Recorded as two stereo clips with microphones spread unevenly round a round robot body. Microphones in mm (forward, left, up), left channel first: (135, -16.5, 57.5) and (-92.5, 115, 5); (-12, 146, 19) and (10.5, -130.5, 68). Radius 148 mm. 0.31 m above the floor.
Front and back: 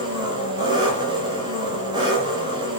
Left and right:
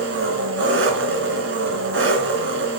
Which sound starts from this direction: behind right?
An engine running, at 0.0 s.